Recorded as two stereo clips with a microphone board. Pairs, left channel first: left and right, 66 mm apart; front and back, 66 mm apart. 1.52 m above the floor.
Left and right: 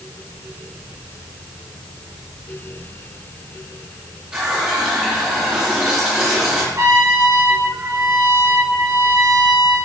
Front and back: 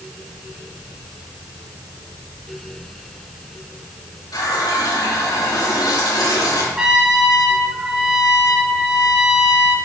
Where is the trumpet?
100° right, 1.4 m.